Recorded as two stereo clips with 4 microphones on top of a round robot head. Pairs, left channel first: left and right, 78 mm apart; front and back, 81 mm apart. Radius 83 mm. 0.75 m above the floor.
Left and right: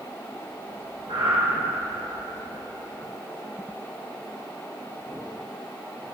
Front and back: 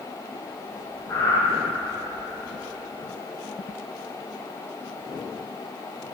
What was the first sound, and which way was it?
Breathing, 60° right.